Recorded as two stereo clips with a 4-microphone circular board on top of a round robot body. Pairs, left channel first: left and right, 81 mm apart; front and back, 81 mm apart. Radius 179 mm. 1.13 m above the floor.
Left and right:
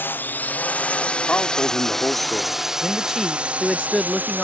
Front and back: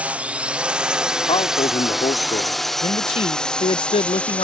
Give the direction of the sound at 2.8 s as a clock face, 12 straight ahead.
12 o'clock.